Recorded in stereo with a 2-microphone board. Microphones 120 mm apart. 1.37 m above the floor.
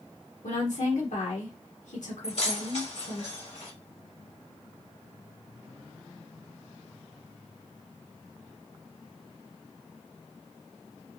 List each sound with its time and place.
0.4 s a woman speaking: 85° left, 1.2 m
2.2 s keys jangling: 65° left (ahead or behind), 1.3 m